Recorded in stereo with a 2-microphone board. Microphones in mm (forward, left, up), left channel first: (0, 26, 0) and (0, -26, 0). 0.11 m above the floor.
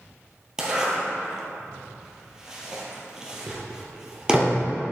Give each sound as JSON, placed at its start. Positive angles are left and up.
{"t": 0.6, "sound": "a zipper", "side_deg": -10, "distance_m": 1.7}